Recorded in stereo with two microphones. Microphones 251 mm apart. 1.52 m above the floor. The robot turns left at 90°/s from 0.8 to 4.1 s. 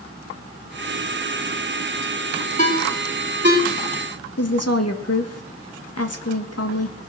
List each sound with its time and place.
2.6 s a ringtone: 30° left (ahead or behind), 2.5 m; by 3.6 s 60° right (ahead or behind), 2.5 m
4.4 s a woman speaking: 70° left (ahead or behind), 1.7 m